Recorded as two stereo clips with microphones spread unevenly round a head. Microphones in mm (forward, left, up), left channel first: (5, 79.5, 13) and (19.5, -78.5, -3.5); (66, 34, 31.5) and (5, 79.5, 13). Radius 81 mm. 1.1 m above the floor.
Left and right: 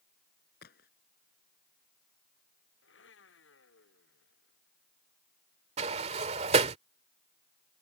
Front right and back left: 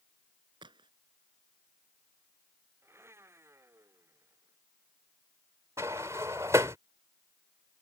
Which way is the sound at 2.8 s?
85° left.